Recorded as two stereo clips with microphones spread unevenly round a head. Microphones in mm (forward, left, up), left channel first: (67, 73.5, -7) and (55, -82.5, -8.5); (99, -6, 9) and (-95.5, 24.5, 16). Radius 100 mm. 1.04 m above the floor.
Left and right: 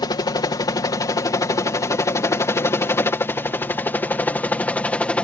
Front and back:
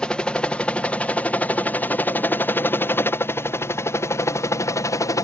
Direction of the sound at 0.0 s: 70° left.